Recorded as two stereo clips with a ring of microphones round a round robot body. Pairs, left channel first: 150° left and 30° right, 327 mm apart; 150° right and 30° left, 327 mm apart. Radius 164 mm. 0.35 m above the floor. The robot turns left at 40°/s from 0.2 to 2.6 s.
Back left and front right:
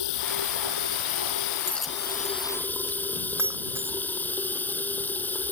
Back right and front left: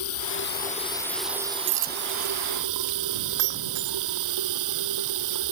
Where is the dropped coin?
65° left; by 3.0 s 30° left.